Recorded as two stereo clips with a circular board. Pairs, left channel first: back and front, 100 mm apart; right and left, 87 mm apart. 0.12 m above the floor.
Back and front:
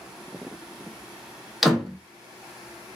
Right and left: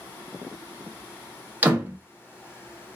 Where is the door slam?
85° left, 0.7 m.